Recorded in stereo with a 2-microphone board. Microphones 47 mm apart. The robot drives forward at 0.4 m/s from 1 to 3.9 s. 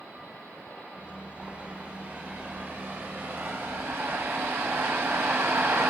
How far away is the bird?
About 2 m.